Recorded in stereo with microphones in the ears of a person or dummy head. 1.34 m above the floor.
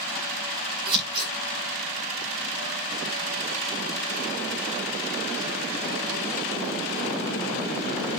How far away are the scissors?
About 5.5 m.